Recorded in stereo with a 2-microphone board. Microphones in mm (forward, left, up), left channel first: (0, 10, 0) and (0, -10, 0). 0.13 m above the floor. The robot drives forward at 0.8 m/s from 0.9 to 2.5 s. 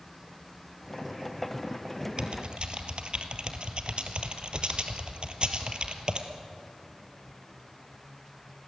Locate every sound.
2.2 s typing on a keyboard: 55° right (ahead or behind), 1.8 m; by 6.3 s 50° right (ahead or behind), 1.9 m